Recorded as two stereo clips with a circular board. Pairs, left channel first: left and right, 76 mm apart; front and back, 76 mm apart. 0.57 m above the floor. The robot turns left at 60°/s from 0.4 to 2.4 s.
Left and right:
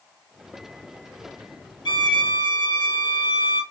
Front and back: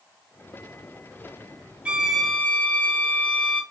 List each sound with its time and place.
1.9 s a violin: 105° left, 0.5 m; by 3.6 s 70° left, 0.5 m